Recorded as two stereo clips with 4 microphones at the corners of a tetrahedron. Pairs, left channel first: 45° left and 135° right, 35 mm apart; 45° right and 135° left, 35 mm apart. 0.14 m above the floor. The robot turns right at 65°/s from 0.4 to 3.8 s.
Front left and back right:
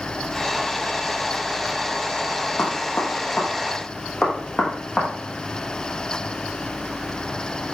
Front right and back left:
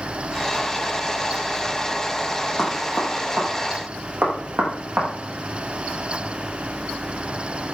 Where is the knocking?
45° left, 5 m; by 5.1 s 125° left, 5 m.